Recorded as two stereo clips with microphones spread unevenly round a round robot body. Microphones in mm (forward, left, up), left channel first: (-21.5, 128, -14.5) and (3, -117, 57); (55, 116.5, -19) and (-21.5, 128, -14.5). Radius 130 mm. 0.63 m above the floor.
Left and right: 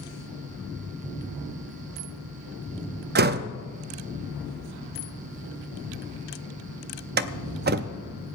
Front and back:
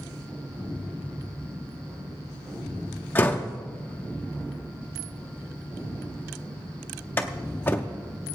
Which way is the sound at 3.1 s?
40° right.